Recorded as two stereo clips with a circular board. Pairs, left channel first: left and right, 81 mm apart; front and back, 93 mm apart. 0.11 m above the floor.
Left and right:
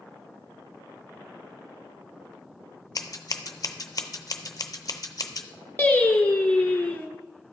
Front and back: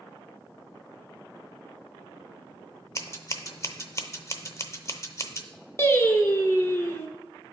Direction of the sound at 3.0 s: 50° left.